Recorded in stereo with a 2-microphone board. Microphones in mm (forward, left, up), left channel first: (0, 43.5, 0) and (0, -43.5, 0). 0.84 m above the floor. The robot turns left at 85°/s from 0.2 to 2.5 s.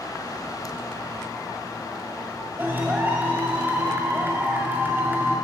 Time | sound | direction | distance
2.6 | a clap | 20° right (ahead or behind) | 1.9 m